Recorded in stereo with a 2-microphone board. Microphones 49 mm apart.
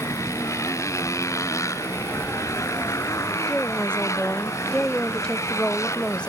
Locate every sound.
0.0 s a motorcycle: 85° left; by 6.3 s 75° left (ahead or behind)
2.1 s a siren: 35° left (ahead or behind)
3.5 s a woman speaking: 20° left (ahead or behind)